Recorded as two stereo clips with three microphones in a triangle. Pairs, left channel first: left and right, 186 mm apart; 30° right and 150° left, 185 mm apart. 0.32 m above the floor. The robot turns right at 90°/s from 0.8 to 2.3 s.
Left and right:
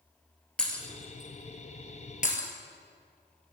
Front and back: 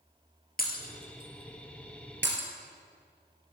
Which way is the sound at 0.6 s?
5° left.